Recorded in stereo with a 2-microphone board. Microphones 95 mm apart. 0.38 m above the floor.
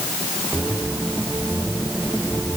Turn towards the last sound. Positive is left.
No sound to turn to.